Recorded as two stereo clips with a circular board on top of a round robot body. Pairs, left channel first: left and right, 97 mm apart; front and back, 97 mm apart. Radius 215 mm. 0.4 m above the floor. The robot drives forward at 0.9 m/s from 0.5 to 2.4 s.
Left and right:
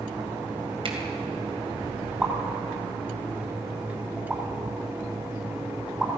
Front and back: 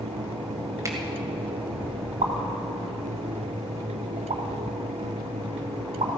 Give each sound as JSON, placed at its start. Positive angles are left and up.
{"t": 0.8, "sound": "a finger snap", "azimuth_deg": -120, "distance_m": 2.0}
{"t": 2.2, "sound": "a pop", "azimuth_deg": -175, "distance_m": 2.0}